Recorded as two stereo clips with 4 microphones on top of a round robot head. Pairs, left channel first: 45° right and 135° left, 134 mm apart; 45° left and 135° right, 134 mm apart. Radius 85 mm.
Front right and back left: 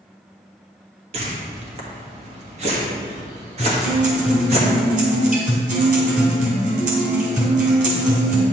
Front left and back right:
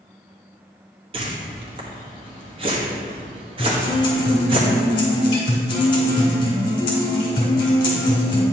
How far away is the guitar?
About 2.5 m.